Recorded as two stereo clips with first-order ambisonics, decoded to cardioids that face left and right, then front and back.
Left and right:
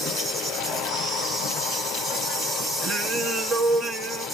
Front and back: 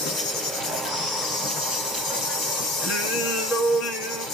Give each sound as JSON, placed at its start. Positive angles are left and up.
{"t": 0.0, "sound": "an insect", "azimuth_deg": -10, "distance_m": 3.5}
{"t": 2.8, "sound": "singing", "azimuth_deg": -30, "distance_m": 4.0}